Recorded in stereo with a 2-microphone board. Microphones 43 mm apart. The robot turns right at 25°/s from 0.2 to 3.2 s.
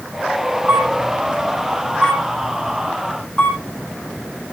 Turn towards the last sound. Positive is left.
turn(degrees=20)  # may be behind; listen again after turning